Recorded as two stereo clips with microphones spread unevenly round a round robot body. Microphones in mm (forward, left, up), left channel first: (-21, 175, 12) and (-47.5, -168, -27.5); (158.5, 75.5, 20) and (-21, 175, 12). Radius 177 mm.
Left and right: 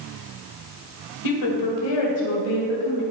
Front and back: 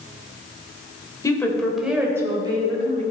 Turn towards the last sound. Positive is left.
turn(degrees=90)